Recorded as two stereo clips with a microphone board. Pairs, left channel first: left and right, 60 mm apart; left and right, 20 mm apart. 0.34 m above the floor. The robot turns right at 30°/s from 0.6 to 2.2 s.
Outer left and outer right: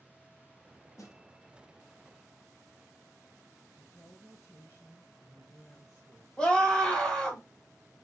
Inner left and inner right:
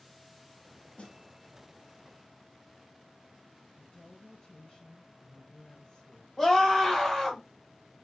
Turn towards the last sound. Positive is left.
turn(degrees=15)  # may be behind; listen again after turning